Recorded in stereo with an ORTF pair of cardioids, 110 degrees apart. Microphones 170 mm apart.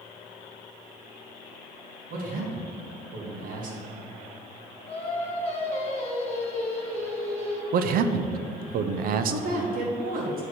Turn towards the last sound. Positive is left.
turn(degrees=-60)